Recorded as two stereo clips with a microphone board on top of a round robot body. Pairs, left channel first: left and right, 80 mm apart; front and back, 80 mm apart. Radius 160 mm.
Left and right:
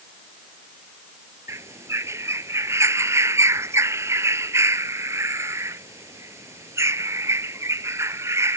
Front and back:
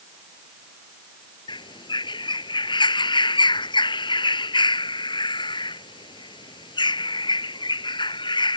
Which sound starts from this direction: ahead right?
A bird, at 1.5 s.